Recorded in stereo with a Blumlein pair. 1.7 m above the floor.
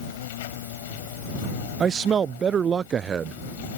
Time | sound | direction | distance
0.0 | an insect | 55° left | ?
1.8 | a man speaking | 20° right | ?